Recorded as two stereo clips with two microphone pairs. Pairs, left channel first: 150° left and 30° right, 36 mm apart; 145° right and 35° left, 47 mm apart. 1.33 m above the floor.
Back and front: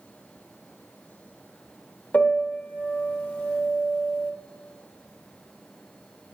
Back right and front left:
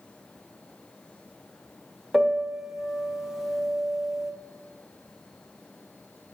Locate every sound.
2.1 s a piano: 115° left, 0.9 m